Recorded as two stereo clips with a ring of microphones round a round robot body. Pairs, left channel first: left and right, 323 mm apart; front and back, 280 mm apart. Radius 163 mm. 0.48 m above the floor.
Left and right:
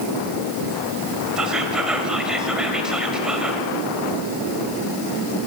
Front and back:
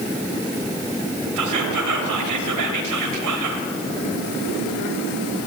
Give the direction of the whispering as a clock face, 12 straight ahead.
6 o'clock.